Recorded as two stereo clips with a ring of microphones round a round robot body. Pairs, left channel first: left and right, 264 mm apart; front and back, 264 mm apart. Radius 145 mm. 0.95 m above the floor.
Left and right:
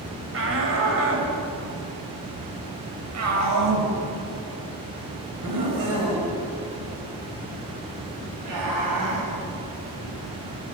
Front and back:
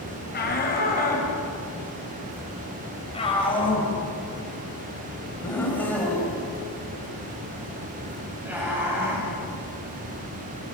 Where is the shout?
50° right, 6.5 m; by 9.3 s 100° right, 8 m.